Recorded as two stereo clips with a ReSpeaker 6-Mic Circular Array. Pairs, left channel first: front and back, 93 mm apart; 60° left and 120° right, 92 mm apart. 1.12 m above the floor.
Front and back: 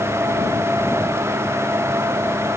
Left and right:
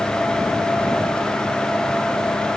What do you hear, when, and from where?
Only background noise.